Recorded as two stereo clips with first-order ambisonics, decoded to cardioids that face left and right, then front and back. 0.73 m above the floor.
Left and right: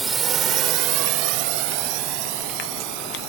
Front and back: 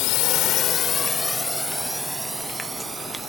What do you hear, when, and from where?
0.0 s a drone: 15° right; by 3.3 s 105° right